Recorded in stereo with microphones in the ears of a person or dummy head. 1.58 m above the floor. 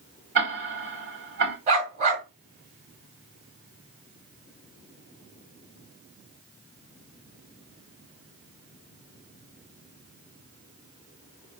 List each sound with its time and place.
0.3 s ticking: 50° right (ahead or behind), 1.9 m
1.7 s a dog barking: 40° right (ahead or behind), 2 m